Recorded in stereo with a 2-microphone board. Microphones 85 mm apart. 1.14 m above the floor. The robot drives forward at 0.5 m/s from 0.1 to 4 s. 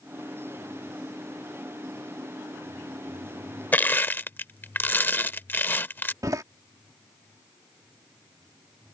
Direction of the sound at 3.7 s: 25° left (ahead or behind).